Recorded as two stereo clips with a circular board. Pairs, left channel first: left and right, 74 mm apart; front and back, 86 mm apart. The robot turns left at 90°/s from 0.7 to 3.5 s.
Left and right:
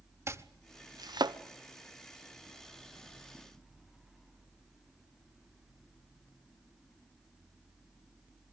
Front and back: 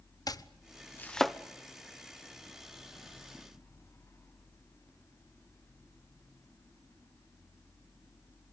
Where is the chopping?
40° right, 1.0 m; by 1.4 s 95° right, 1.0 m.